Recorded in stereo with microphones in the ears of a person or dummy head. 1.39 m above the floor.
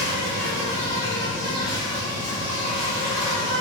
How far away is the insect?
About 2.5 m.